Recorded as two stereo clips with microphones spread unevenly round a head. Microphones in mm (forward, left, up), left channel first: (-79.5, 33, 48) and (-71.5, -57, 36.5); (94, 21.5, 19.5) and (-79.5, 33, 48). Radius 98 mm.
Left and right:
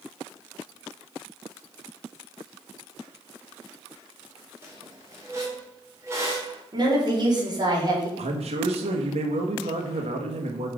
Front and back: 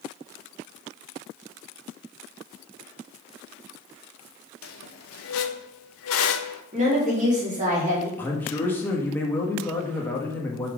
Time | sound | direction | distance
4.6 | a squeak | 10° right | 0.7 m
6.7 | a woman speaking | 125° right | 3 m
8.2 | a man speaking | 85° right | 1.3 m